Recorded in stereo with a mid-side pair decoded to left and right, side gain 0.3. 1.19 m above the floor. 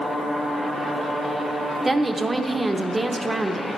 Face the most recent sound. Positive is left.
turn(degrees=-30)